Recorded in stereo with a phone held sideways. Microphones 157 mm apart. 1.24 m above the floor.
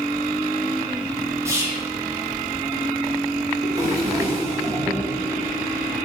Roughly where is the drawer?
Right.